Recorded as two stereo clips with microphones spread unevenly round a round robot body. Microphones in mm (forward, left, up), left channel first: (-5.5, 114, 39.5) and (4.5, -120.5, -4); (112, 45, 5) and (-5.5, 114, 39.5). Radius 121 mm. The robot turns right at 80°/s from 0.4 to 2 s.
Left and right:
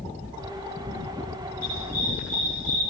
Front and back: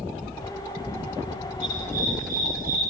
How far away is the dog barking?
About 9.5 m.